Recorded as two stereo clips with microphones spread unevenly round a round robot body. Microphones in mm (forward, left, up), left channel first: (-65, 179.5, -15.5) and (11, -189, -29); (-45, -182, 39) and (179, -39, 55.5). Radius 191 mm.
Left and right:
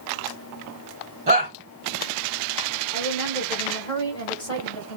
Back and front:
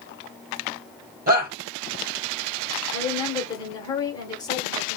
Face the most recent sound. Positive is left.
turn(degrees=170)